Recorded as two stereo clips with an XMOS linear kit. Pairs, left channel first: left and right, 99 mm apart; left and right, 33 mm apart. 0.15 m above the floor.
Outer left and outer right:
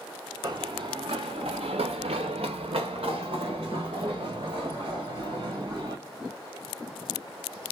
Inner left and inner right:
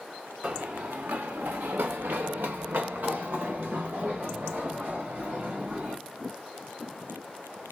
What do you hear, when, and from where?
0.4 s running footsteps: 45° right (ahead or behind), 0.9 m; by 6.0 s 50° right (ahead or behind), 2.5 m